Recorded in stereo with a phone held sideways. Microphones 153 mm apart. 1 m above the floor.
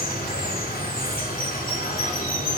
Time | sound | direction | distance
0.0 | running water | 80° left | 3 m